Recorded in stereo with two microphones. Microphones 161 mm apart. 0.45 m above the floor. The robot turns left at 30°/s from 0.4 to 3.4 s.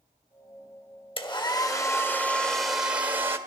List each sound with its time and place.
1.2 s a hair dryer: 45° left, 1.6 m; by 3.4 s 25° right, 1.6 m